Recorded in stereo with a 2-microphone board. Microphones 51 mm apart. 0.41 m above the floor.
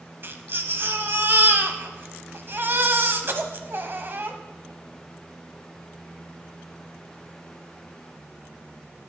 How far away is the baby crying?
About 0.9 m.